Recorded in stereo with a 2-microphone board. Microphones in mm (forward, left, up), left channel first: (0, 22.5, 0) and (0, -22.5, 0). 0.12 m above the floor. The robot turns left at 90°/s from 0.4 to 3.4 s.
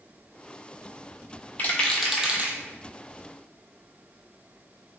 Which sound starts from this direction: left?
A rattle, at 1.6 s.